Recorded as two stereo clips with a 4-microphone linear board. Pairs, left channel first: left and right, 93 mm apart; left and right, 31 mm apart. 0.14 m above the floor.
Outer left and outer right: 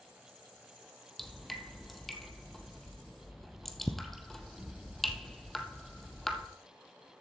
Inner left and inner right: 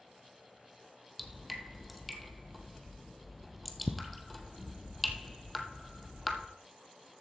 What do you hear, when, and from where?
1.2 s dripping: 5° left (ahead or behind), 1.1 m